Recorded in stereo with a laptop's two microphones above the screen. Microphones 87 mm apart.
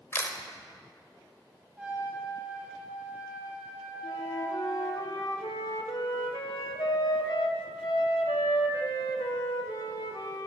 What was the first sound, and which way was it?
A camera shutter, 25° left (ahead or behind).